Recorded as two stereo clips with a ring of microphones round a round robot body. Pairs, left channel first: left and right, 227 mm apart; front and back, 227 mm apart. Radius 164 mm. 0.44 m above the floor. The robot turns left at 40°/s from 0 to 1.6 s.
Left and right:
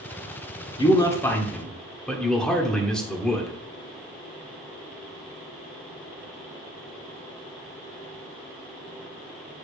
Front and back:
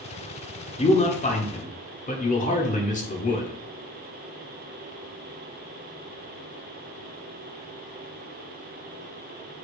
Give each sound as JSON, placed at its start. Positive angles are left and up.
{"t": 0.8, "sound": "a man speaking", "azimuth_deg": 40, "distance_m": 1.5}